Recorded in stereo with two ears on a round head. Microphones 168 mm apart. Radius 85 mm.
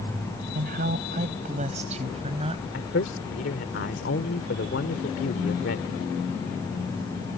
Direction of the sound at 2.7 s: 65° left (ahead or behind).